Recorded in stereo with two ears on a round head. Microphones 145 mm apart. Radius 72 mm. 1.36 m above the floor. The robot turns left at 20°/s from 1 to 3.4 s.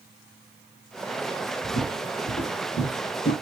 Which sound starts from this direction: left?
Footsteps, at 1.6 s.